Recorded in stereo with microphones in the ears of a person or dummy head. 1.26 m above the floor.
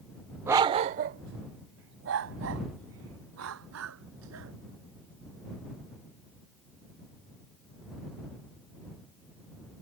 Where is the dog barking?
10° right (ahead or behind); by 4.5 s 75° right (ahead or behind).